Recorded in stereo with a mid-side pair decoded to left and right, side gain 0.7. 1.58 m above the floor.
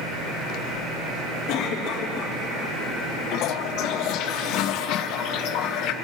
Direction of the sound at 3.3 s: 60° left.